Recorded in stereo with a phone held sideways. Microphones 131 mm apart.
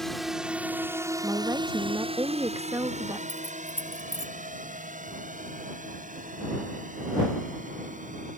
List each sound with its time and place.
0.0 s a drone: centre (ahead or behind); by 8.4 s 75° right (ahead or behind)
1.2 s a woman speaking: 25° right (ahead or behind)
3.3 s keys jangling: 50° left (ahead or behind)